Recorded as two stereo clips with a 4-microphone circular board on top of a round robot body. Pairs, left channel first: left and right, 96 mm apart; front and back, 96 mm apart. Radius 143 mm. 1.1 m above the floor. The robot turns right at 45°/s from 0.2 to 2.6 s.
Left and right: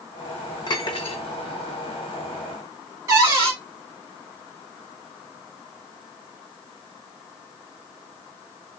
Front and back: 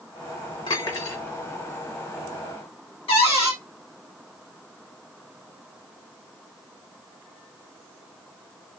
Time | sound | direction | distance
0.7 | cutlery clinking | 40° left | 0.6 m
3.1 | a cupboard door | 30° right | 1.7 m